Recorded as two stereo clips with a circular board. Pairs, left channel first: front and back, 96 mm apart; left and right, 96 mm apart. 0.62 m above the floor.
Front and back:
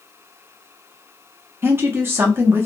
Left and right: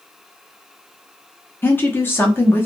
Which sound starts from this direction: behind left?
A woman speaking, at 1.6 s.